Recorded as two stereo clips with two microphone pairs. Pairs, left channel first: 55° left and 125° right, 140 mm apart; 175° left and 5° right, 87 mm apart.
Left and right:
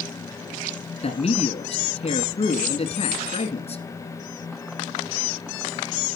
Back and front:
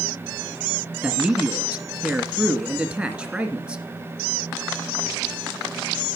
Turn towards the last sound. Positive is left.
turn(degrees=65)